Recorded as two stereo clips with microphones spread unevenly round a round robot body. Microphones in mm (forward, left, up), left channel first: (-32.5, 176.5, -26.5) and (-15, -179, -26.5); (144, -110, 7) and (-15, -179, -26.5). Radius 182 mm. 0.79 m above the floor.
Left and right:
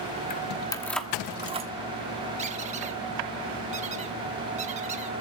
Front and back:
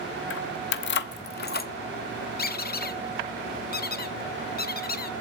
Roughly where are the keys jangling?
Ahead left.